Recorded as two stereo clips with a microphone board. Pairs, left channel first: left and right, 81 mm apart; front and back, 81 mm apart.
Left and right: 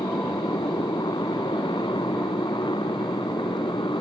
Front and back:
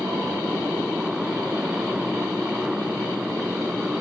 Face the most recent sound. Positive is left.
turn(degrees=95)